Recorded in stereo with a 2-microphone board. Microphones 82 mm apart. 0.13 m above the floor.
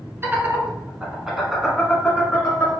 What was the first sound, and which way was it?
Laughter, 30° right (ahead or behind).